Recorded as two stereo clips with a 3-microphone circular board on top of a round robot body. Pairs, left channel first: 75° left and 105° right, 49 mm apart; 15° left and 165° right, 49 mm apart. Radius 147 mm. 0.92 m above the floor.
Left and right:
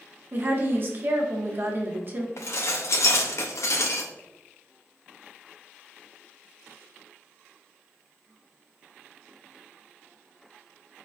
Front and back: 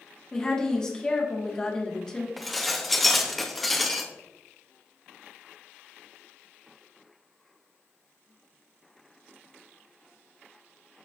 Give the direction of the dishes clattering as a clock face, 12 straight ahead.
9 o'clock.